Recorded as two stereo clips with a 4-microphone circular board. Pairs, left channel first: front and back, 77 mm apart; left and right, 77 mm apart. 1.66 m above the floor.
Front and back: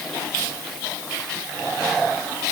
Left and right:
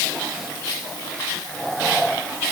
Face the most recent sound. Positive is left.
No sound to turn to.